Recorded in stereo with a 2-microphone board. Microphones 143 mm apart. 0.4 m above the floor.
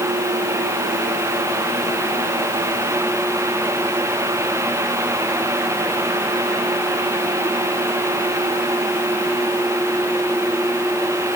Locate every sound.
Only background noise.